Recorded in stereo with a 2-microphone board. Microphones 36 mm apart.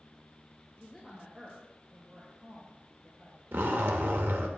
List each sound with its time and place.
0.8 s a woman speaking: 5° right (ahead or behind), 1.8 m; by 3.4 s 55° right (ahead or behind), 1.7 m
3.5 s a zipper: 70° right (ahead or behind), 0.8 m